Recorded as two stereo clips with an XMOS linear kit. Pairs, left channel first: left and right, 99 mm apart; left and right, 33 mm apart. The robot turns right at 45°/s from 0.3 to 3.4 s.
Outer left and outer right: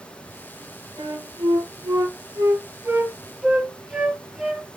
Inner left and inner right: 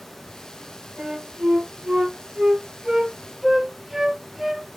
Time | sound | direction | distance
1.0 | a flute | 45° right (ahead or behind) | 3 m